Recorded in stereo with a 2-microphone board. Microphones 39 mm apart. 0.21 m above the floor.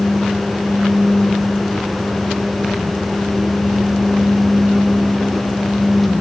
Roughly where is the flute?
No flute in this recording.